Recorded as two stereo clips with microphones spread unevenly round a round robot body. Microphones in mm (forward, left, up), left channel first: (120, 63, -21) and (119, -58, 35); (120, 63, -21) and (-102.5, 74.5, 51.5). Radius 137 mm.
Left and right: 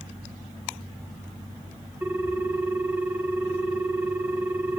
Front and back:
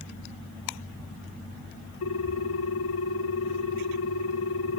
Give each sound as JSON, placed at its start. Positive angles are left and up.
{"t": 2.0, "sound": "a ringtone", "azimuth_deg": -10, "distance_m": 1.5}